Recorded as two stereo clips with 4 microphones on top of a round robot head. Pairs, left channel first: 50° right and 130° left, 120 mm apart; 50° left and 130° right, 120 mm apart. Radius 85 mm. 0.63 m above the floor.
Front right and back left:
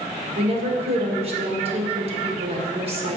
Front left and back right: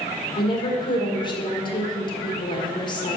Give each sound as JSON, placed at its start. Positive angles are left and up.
{"t": 0.4, "sound": "a woman speaking", "azimuth_deg": 100, "distance_m": 1.8}